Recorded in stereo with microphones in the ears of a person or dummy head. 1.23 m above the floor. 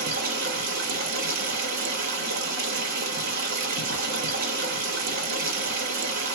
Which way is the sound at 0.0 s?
55° right (ahead or behind).